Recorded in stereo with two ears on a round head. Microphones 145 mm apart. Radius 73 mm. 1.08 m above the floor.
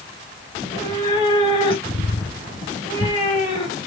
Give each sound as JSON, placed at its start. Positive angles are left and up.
{"t": 0.6, "sound": "a cat meowing", "side_deg": 35, "distance_m": 2.0}